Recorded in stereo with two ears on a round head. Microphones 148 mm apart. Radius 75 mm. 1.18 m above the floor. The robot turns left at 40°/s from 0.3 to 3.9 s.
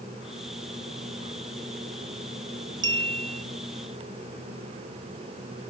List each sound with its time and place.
2.8 s a clink: 25° right (ahead or behind); by 3.5 s 40° right (ahead or behind)